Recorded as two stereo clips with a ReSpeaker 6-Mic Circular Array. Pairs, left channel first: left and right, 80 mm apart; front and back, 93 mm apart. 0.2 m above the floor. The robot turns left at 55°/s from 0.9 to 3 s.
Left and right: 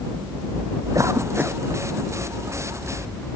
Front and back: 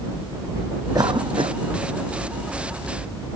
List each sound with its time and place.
0.9 s a cough: 135° right; by 1.6 s 170° right